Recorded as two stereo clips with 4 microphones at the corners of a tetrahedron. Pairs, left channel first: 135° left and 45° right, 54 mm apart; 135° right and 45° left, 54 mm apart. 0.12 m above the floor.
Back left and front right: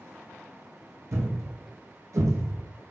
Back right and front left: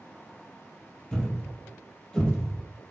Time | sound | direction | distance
1.1 | a thud | 60° right | 2 m